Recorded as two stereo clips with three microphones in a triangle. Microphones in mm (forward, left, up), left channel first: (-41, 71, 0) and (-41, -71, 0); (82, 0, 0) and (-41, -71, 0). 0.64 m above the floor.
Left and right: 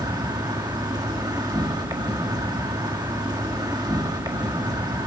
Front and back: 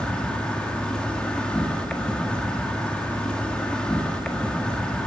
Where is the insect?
50° right, 1.4 m.